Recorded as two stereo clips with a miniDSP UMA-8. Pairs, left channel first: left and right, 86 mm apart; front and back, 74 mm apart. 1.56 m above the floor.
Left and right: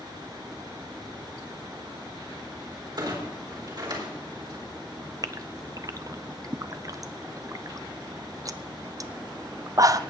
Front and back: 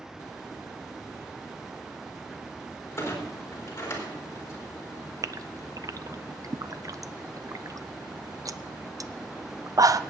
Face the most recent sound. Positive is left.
turn(degrees=-140)